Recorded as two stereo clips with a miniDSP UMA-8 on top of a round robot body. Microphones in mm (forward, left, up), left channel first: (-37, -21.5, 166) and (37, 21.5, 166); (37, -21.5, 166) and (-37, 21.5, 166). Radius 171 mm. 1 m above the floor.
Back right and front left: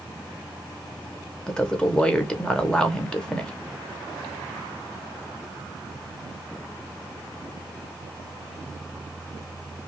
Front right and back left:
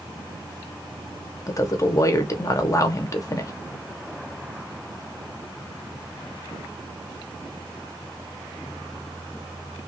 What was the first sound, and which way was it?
A woman speaking, 70° right.